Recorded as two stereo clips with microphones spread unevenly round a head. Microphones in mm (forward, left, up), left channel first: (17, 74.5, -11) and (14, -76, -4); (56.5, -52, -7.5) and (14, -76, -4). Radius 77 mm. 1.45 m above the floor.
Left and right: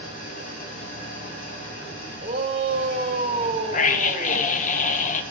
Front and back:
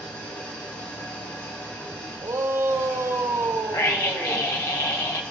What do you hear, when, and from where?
0.0 s an engine running: 55° left, 3 m
2.2 s a shout: 140° right, 1.6 m
3.7 s a scream: 55° left, 0.8 m